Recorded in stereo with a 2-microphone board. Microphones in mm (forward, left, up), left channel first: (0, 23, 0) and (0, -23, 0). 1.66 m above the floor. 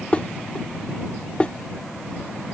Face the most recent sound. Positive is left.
turn(degrees=25)  # may be behind; listen again after turning